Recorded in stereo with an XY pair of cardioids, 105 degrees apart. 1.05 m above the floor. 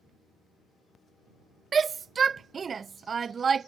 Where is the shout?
35° right.